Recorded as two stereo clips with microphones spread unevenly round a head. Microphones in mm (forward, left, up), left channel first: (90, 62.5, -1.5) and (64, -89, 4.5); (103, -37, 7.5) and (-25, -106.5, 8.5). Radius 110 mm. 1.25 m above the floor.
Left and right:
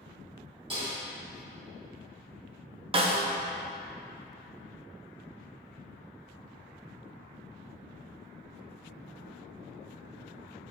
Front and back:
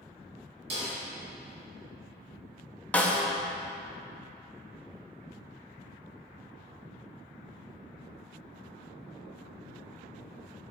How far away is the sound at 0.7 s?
About 1.9 m.